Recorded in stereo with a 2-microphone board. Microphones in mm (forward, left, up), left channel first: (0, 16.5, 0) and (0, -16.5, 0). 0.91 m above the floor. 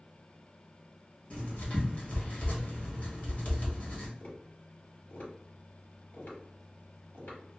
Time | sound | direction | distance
1.3 | writing | 45° left (ahead or behind) | 1.0 m
4.2 | tapping | 80° left | 2.0 m